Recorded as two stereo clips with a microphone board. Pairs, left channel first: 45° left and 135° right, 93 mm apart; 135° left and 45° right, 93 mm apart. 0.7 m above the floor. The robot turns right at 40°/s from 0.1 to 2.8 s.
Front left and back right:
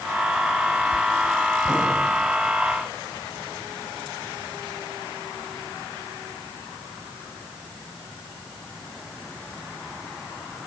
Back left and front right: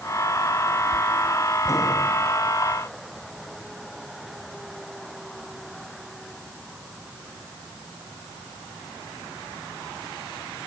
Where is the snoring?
I don't hear snoring.